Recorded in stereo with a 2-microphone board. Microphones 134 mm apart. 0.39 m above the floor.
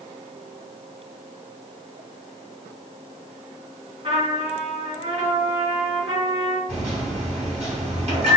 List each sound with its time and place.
4.0 s a trumpet: 50° right (ahead or behind), 1.7 m
6.7 s a microwave: 50° right (ahead or behind), 1.8 m